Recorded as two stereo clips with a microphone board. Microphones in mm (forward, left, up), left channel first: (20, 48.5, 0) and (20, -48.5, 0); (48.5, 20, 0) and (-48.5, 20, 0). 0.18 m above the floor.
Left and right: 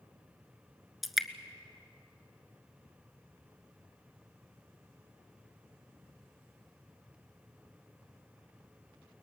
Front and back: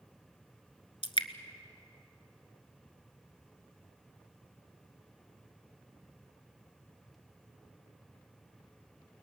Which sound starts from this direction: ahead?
Dripping, at 1.0 s.